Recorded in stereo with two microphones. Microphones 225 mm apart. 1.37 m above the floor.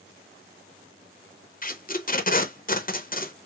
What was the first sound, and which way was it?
Tape being pulled, 40° left (ahead or behind).